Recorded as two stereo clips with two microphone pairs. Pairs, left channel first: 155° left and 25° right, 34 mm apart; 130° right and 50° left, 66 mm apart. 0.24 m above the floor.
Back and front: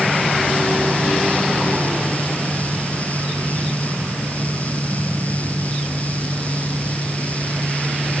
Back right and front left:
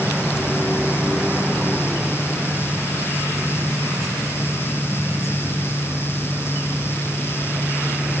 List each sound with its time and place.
Only background noise.